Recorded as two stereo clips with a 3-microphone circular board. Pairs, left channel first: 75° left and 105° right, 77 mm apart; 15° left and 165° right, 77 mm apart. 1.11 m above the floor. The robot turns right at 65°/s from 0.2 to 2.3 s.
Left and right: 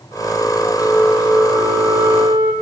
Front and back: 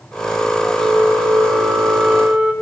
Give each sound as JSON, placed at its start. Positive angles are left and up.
{"t": 0.8, "sound": "a flute", "azimuth_deg": 165, "distance_m": 1.3}